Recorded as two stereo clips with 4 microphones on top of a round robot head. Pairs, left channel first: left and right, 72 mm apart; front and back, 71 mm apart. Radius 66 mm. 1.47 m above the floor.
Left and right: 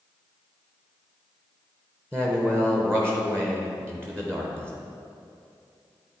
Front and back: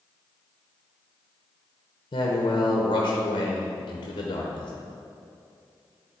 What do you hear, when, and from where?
2.1 s a man speaking: 10° left, 0.8 m